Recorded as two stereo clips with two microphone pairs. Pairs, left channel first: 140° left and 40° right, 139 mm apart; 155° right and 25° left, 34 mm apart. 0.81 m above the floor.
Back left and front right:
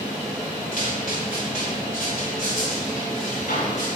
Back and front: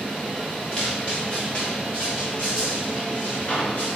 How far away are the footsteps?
About 4.5 m.